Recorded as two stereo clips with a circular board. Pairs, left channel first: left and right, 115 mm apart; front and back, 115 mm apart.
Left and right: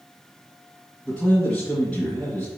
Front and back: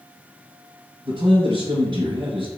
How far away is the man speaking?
About 1.5 m.